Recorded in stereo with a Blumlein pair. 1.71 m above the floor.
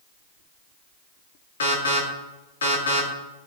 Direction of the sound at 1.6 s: 65° left.